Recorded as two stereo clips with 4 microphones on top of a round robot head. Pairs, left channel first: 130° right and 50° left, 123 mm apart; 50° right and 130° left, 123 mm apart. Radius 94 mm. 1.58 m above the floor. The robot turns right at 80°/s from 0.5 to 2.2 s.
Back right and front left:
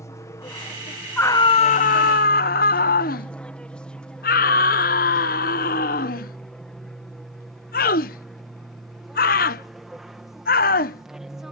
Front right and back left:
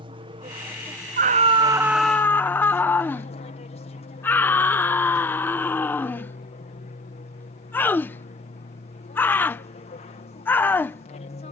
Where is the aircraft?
165° left; by 11.5 s 35° right.